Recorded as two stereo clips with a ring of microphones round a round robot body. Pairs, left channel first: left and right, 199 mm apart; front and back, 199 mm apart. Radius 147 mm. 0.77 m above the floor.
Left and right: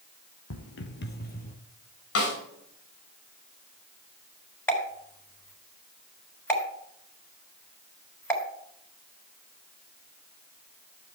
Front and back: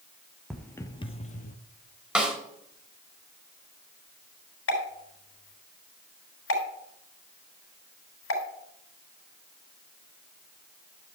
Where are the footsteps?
90° left, 1.4 m; by 1.6 s 40° left, 1.5 m.